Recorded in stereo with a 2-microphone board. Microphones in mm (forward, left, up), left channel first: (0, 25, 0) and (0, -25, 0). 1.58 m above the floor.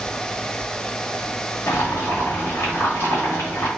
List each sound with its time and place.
1.7 s boiling: 50° left (ahead or behind), 1.9 m